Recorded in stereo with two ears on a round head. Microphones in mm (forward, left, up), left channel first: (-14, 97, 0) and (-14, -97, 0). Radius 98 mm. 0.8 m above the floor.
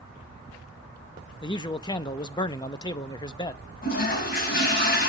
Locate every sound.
1.4 s a man speaking: 20° left (ahead or behind), 0.7 m
3.8 s a toilet flushing: 45° left (ahead or behind), 4 m